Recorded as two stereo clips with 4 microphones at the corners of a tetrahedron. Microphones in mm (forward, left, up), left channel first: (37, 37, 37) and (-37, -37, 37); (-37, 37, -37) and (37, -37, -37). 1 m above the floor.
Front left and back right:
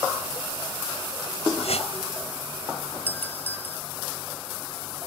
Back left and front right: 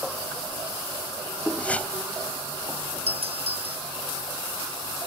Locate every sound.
1.6 s a whoosh: 55° left
3.1 s a doorbell: 25° right